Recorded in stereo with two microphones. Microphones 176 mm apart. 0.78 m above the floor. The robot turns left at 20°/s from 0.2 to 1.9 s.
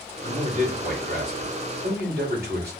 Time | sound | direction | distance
0.2 | a man speaking | 55° right | 2.5 m